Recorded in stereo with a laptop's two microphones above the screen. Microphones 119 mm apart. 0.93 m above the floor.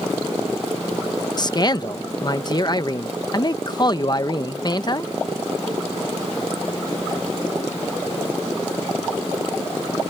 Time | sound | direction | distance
1.4 | a man speaking | 35° left (ahead or behind) | ?